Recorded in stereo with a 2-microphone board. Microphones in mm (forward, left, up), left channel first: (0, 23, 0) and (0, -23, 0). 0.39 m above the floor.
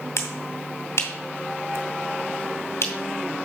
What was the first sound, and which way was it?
A finger snap, 65° left (ahead or behind).